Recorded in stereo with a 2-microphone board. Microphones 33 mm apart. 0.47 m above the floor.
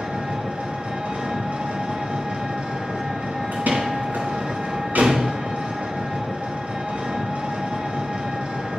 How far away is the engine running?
About 2.5 m.